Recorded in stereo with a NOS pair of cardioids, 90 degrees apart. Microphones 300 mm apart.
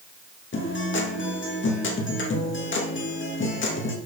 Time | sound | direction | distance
0.5 | a guitar | 40° left | 2.5 m